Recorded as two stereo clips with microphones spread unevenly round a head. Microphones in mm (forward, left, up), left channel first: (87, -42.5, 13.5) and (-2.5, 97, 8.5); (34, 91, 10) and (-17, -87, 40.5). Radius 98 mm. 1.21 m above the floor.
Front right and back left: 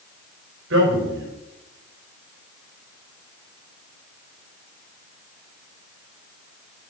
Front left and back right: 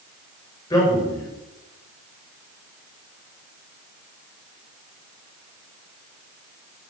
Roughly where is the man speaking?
Behind left.